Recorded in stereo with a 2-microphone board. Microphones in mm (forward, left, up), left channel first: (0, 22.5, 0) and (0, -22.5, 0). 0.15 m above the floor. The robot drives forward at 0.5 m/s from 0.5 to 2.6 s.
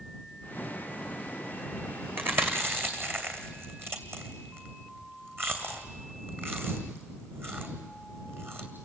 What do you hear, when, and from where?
2.2 s chewing: 50° right (ahead or behind), 2.5 m; by 8.7 s 55° right (ahead or behind), 2.5 m